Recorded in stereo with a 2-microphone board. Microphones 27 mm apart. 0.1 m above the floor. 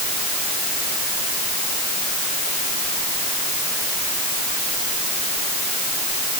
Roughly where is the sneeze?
No sneeze in this recording.